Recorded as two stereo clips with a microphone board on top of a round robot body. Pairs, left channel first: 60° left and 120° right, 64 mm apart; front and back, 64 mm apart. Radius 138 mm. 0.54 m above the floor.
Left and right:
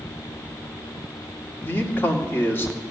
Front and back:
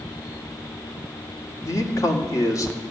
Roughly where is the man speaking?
Ahead.